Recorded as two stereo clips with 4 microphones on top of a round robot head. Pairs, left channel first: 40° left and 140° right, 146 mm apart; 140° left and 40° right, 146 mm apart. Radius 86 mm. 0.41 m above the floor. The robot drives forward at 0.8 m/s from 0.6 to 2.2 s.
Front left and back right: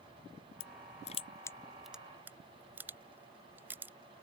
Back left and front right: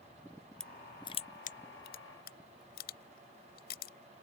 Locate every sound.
0.6 s crushing: 50° left; by 3.9 s 145° left